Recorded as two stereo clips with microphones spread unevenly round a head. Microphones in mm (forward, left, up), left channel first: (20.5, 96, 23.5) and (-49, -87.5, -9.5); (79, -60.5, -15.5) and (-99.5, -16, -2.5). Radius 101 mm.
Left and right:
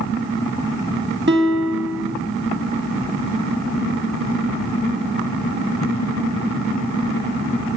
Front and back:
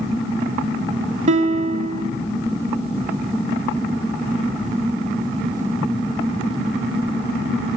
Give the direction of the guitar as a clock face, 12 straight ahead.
5 o'clock.